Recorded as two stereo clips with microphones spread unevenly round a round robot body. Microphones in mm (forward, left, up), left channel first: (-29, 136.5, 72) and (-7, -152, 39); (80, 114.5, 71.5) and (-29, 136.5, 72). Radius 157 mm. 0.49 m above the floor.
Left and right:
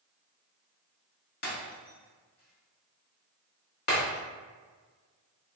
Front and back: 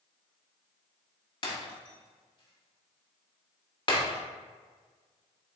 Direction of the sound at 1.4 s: 35° left.